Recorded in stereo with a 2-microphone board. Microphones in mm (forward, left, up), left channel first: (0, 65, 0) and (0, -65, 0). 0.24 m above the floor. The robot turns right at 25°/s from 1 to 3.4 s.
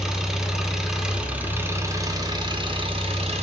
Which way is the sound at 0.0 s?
175° right.